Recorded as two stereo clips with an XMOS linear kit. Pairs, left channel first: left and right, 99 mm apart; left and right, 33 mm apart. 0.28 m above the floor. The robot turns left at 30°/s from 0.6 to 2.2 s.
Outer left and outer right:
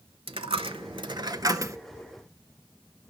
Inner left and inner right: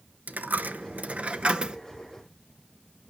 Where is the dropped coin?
115° right, 0.6 m; by 1.8 s 150° right, 0.6 m.